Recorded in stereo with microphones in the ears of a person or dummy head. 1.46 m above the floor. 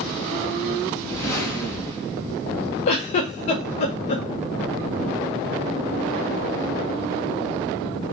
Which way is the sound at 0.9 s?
15° left (ahead or behind).